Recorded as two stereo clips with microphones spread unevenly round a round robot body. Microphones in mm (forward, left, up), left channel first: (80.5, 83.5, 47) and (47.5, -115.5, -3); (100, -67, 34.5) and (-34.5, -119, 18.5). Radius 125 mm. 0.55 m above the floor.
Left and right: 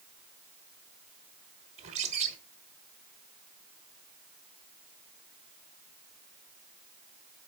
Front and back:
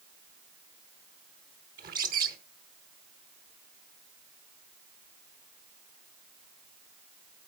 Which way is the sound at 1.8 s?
160° right.